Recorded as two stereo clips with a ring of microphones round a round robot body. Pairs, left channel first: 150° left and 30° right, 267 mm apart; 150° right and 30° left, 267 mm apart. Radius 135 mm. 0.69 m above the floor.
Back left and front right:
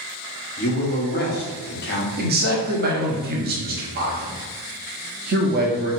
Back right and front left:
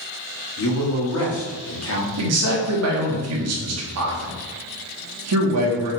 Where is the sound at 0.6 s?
165° right, 1.2 m.